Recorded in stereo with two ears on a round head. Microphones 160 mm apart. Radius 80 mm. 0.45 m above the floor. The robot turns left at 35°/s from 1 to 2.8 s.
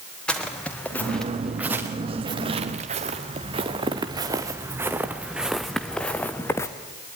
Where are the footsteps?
5° left (ahead or behind), 3 m; by 6.7 s 15° left (ahead or behind), 1.9 m.